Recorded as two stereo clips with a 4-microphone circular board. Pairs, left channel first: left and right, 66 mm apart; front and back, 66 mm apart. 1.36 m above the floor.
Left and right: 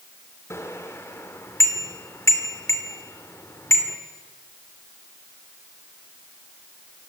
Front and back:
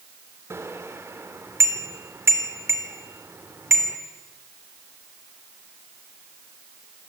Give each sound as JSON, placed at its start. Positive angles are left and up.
{"t": 0.5, "sound": "a bicycle bell", "azimuth_deg": 135, "distance_m": 3.0}